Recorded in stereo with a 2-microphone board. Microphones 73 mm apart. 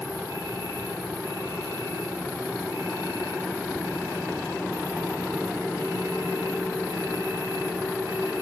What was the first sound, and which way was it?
An insect, 75° left (ahead or behind).